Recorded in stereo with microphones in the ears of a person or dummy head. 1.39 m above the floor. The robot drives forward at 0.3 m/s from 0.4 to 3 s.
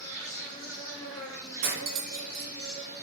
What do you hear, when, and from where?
0.0 s an insect: 5° left (ahead or behind), 1.1 m
1.6 s cutlery clinking: 60° right (ahead or behind), 1.1 m